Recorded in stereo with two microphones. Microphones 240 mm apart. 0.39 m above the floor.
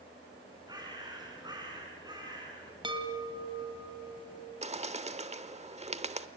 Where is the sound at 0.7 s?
15° right (ahead or behind), 5 m.